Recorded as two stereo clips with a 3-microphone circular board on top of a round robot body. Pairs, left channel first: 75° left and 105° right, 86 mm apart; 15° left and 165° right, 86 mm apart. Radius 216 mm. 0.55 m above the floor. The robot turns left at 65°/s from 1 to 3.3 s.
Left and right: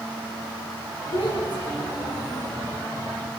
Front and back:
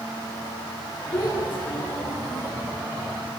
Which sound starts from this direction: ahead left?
A child speaking, at 1.1 s.